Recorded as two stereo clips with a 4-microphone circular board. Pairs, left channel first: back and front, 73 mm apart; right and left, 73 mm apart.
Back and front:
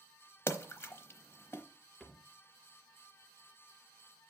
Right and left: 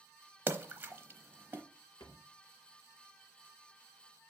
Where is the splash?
140° left, 0.8 m.